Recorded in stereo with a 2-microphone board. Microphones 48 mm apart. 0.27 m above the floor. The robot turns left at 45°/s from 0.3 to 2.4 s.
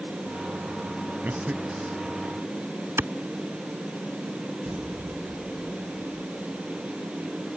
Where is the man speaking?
125° right; by 2.0 s 160° right.